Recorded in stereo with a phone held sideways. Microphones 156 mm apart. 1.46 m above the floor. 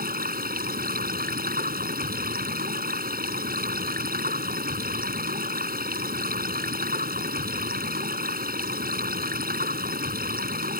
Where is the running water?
70° right (ahead or behind).